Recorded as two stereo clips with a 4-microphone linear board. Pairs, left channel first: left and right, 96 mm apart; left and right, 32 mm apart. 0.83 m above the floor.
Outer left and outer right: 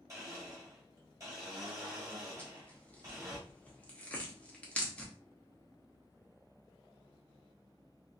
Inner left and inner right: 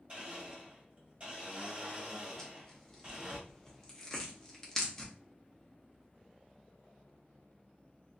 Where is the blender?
35° right (ahead or behind), 1.5 m.